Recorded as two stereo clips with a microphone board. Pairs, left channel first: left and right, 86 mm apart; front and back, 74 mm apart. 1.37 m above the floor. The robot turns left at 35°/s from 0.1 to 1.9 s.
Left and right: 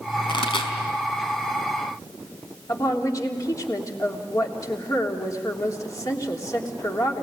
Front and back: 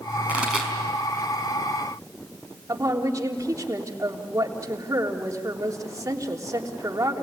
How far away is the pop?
About 4 m.